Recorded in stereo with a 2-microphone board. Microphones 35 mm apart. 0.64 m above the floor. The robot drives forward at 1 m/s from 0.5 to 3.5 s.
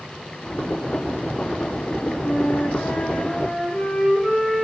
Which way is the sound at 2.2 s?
65° left (ahead or behind).